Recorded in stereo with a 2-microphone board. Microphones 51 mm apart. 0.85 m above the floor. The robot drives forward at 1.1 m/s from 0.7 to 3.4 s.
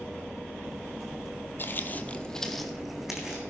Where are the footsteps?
40° left (ahead or behind), 1.2 m; by 3.4 s 10° right (ahead or behind), 3 m.